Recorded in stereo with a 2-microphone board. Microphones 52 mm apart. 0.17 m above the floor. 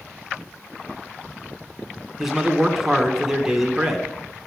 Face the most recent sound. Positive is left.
turn(degrees=-5)  # may be behind; listen again after turning